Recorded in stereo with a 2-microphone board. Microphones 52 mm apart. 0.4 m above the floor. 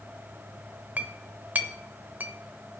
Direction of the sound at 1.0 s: 35° right (ahead or behind).